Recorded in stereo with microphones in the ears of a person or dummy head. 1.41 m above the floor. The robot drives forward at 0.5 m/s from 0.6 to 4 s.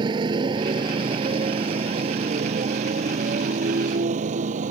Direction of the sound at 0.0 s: 25° right (ahead or behind).